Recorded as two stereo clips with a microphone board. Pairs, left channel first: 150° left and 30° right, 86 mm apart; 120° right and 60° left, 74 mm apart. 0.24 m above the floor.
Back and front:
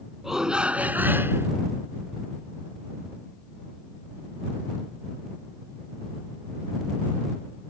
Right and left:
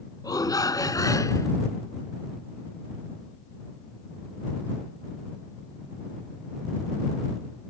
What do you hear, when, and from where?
0.2 s a shout: 115° right; by 1.5 s 85° right